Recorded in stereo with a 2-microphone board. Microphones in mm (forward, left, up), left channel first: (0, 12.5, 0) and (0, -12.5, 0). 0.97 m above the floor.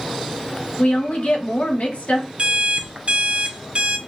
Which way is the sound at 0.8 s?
70° left (ahead or behind).